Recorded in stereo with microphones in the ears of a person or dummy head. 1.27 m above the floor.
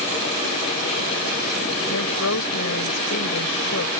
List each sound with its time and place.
1.9 s a woman speaking: 80° left